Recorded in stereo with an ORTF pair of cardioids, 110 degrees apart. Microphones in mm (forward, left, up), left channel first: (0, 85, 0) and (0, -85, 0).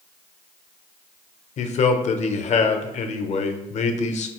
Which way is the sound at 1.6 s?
45° left.